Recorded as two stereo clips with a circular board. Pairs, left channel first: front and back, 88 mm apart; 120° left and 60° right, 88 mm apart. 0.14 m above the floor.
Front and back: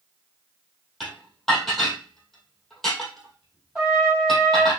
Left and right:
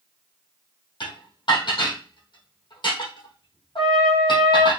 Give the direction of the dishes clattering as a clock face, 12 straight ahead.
9 o'clock.